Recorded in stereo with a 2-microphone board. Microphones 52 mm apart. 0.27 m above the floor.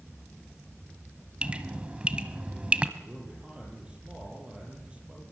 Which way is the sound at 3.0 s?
20° right (ahead or behind).